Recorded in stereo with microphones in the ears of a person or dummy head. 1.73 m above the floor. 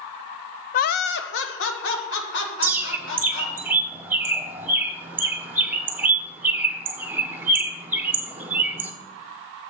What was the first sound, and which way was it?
Laughter, 40° left (ahead or behind).